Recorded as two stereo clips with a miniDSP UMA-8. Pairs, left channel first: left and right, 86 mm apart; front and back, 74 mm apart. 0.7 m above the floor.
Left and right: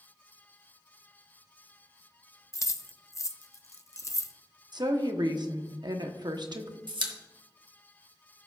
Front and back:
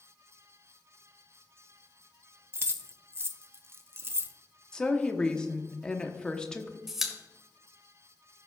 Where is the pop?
95° right, 1.2 m.